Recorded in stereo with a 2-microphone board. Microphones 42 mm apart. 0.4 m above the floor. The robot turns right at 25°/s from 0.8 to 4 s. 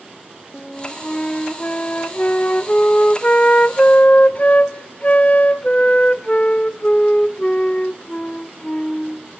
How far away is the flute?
About 0.5 m.